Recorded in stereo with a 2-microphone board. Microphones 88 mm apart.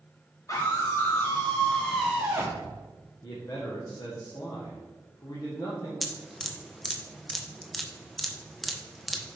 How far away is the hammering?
I don't hear hammering.